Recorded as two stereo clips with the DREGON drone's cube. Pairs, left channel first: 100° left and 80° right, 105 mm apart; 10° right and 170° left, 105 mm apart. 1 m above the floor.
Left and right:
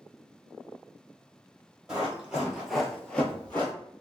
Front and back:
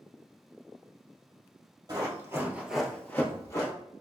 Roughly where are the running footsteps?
Behind right.